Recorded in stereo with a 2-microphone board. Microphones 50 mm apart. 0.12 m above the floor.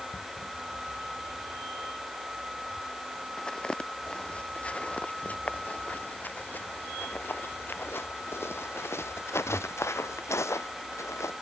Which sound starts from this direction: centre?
Footsteps, at 3.4 s.